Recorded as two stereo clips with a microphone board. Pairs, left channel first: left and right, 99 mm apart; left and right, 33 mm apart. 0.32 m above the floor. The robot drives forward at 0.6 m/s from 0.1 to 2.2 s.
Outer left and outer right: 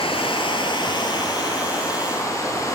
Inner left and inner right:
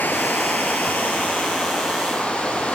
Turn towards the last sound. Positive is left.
turn(degrees=30)  # may be behind; listen again after turning